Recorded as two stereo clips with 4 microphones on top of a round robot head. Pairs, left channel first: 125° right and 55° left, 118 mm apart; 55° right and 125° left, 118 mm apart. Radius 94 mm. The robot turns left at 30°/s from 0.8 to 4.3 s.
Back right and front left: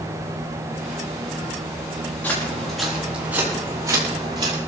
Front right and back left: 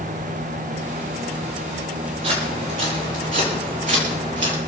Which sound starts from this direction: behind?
Footsteps, at 2.2 s.